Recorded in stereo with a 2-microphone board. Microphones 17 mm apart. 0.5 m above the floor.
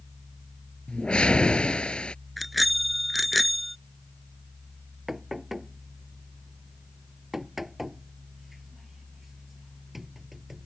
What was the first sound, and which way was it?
A whoosh, 85° left.